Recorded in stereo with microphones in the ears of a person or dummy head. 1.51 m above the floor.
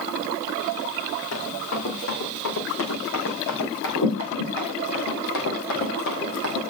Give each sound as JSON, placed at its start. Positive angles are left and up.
{"t": 1.3, "sound": "running footsteps", "side_deg": 75, "distance_m": 5.5}